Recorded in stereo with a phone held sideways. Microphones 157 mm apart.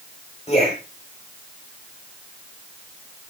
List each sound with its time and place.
0.5 s a man speaking: 45° left (ahead or behind), 4.5 m